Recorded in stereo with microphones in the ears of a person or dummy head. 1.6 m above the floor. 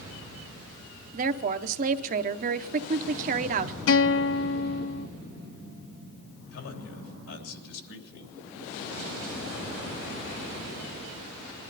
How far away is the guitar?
About 0.9 m.